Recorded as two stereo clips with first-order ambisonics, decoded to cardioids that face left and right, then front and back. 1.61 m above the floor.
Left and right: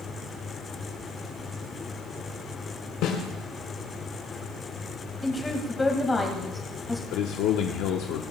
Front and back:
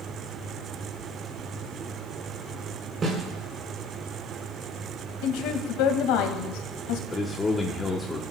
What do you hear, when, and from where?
3.0 s a snare drum: 115° left, 5 m
5.2 s a woman speaking: 15° left, 1.9 m
7.1 s a man speaking: 75° left, 0.9 m